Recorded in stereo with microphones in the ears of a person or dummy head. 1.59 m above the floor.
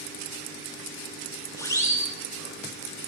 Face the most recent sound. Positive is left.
turn(degrees=15)  # may be behind; listen again after turning